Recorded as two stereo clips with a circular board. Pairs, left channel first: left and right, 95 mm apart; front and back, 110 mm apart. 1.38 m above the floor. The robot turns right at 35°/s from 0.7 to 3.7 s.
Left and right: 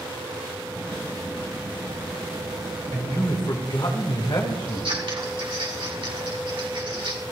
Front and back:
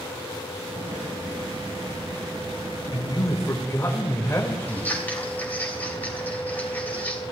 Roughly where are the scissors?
Right.